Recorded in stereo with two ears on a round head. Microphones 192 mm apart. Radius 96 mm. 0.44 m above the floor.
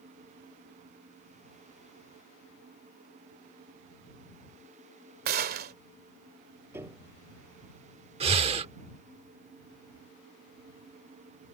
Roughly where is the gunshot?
Right.